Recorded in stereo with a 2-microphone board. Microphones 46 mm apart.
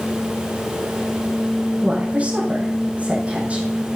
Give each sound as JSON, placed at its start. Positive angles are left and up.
{"t": 1.8, "sound": "a woman speaking", "side_deg": -30, "distance_m": 5.0}